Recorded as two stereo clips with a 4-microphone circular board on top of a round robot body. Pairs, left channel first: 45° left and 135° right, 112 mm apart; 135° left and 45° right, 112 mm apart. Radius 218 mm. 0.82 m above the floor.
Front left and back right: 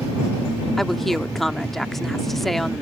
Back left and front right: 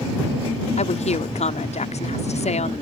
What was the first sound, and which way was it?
A woman speaking, 135° left.